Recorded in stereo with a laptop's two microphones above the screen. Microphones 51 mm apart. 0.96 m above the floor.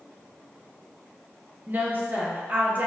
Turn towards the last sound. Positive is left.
turn(degrees=-35)  # may be behind; listen again after turning